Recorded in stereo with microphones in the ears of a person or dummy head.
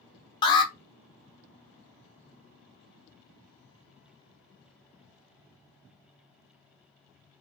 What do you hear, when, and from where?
0.4 s an alarm: 20° left (ahead or behind), 1.0 m